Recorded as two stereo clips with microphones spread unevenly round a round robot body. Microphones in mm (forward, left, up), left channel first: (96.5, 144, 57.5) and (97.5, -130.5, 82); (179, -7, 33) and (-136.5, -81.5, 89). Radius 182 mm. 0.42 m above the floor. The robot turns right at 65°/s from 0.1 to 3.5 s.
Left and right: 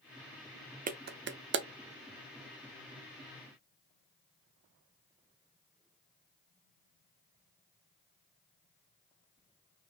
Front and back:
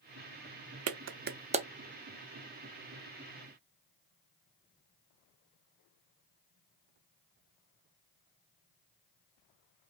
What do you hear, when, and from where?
0.9 s a clap: 135° right, 0.7 m; by 1.7 s 85° right, 0.7 m